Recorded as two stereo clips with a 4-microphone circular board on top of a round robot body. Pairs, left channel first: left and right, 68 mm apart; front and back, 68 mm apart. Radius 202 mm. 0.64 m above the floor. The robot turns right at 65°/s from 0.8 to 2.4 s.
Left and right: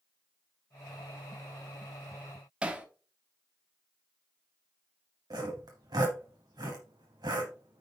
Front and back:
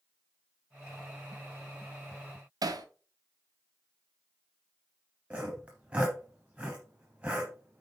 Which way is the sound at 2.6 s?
165° right.